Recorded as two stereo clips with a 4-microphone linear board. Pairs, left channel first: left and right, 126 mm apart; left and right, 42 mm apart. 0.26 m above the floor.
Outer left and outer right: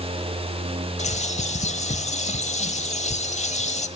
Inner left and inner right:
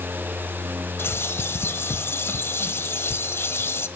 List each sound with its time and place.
1.0 s a bird: 65° left (ahead or behind), 1.3 m